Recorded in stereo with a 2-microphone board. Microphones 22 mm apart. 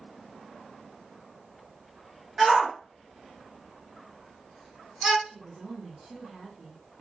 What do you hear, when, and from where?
2.4 s a shout: 25° right (ahead or behind), 1.5 m
5.2 s a woman speaking: 25° right (ahead or behind), 1.1 m